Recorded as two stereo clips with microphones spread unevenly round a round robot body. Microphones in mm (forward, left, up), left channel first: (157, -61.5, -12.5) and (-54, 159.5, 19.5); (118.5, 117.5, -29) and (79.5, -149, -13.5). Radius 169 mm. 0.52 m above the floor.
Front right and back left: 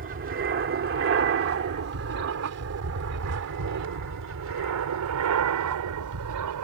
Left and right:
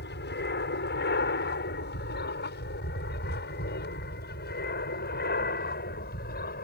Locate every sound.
0.0 s an aircraft: 105° left; by 6.6 s 135° left